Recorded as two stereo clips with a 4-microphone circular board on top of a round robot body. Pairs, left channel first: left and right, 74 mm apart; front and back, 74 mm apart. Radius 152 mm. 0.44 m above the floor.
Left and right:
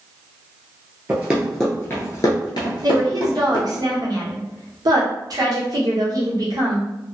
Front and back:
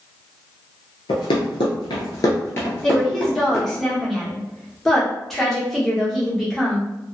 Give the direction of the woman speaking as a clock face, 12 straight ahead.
3 o'clock.